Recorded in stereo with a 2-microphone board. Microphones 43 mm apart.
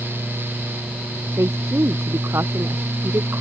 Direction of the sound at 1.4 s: 85° right.